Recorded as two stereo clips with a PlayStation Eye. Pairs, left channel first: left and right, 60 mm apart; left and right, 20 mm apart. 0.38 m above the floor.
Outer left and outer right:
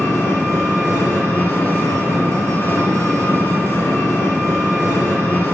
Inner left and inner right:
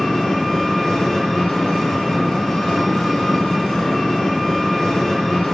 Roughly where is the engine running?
Left.